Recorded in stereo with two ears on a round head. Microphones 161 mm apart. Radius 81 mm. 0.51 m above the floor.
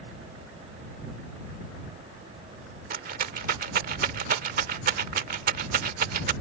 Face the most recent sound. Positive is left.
turn(degrees=-50)  # may be behind; listen again after turning